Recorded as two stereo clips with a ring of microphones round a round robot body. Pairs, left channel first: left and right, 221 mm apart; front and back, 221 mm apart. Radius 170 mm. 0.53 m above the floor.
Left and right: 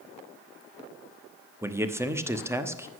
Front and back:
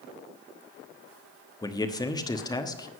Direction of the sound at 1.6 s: 35° right.